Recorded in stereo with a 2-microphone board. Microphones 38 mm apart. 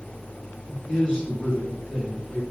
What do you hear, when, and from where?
0.7 s a man speaking: 25° left (ahead or behind), 2 m